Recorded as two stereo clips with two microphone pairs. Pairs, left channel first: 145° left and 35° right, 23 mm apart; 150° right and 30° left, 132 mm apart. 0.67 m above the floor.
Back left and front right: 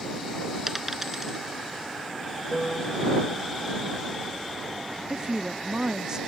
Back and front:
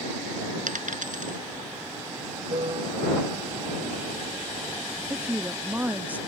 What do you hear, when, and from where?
0.7 s a dropped coin: 45° left
2.5 s a piano: 70° left
5.1 s a woman speaking: 40° right